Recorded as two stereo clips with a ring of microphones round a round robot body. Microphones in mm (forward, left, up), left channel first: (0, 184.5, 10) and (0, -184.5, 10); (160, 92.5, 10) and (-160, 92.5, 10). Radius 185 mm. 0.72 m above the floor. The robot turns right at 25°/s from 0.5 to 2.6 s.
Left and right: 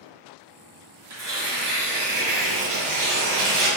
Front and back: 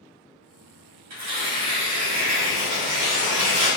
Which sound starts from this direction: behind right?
Tearing paper, at 1.1 s.